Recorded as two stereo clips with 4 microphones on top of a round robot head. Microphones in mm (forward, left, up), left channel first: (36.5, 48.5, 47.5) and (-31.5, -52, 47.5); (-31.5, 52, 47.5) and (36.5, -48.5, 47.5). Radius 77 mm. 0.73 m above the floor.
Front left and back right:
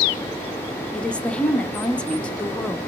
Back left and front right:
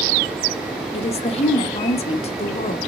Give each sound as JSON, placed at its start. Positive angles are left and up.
{"t": 0.9, "sound": "a woman speaking", "azimuth_deg": 135, "distance_m": 0.8}